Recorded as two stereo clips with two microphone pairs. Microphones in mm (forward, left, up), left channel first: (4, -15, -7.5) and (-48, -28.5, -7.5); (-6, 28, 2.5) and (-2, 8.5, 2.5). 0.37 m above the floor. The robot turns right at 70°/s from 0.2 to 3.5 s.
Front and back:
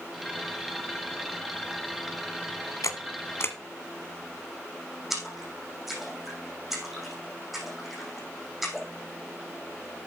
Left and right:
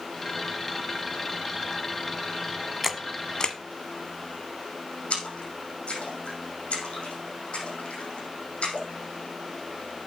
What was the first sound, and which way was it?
A camera shutter, 10° left.